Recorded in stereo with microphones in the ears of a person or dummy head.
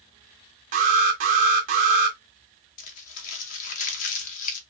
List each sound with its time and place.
0.7 s an alarm: 45° right (ahead or behind), 0.9 m
2.8 s crumpling: 50° left (ahead or behind), 1.2 m